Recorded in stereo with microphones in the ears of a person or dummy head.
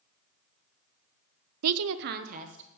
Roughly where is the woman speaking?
Right.